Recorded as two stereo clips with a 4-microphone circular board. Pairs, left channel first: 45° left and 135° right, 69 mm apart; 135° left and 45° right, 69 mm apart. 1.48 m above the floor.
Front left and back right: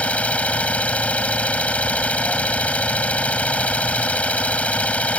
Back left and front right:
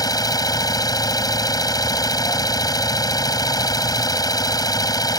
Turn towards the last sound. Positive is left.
turn(degrees=115)